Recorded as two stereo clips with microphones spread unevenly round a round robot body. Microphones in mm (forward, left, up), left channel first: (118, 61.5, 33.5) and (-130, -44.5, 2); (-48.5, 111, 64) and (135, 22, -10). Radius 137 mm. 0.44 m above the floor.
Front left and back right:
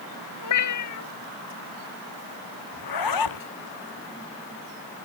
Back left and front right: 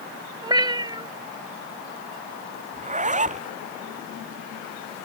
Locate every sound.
0.4 s a cat meowing: 45° left
2.7 s a zipper: 30° left